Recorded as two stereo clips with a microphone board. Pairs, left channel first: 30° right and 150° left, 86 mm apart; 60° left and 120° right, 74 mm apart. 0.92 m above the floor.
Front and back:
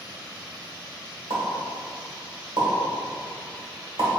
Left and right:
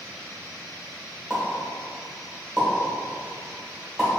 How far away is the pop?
About 1.5 m.